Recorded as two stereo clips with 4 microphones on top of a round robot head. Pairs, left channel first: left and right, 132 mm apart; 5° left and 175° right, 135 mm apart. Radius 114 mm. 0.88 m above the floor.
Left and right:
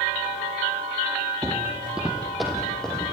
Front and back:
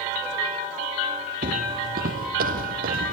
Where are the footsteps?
165° right, 1.3 m; by 3.1 s 175° left, 3 m.